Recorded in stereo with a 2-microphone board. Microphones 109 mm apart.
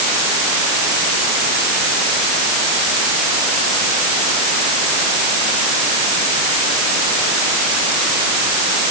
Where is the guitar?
I don't hear a guitar.